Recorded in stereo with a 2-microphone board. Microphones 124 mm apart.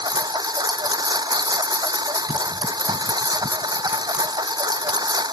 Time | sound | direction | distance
0.0 | a lawn mower | 35° right (ahead or behind) | ?